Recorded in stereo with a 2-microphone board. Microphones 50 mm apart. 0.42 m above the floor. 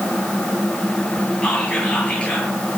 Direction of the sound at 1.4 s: 20° left (ahead or behind).